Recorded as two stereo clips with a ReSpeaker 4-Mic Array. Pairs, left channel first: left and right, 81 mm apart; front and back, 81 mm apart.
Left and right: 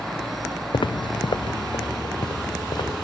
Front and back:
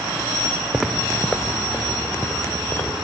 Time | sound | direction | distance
0.7 | footsteps | 95° left | 0.6 m